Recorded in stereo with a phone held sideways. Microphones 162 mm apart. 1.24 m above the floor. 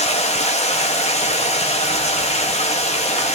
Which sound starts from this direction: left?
Running water, at 0.0 s.